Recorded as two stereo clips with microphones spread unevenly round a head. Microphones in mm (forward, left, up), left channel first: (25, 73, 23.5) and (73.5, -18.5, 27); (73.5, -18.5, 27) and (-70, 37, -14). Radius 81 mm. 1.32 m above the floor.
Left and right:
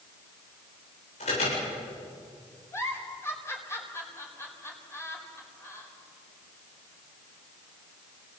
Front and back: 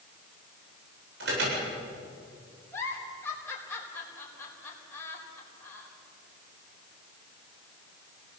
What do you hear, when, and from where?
1.2 s an alarm: 155° left, 8.5 m
2.7 s a giggle: 55° left, 4.5 m